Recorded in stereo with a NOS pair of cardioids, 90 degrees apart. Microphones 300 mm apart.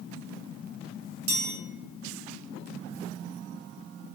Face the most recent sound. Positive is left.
turn(degrees=-45)